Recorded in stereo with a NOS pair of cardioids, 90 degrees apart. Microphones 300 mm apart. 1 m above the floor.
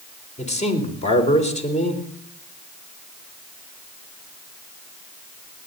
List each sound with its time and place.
0.4 s a man speaking: 25° left, 3.5 m